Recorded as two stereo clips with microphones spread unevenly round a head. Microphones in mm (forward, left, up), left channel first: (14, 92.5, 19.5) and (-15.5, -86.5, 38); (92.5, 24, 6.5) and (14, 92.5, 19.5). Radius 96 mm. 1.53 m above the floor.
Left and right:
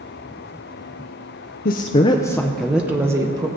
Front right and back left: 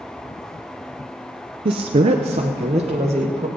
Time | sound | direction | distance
1.6 | a woman speaking | 120° left | 0.6 m